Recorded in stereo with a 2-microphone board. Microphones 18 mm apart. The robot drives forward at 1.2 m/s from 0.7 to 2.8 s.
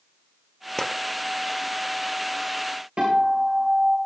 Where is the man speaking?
I don't hear a man speaking.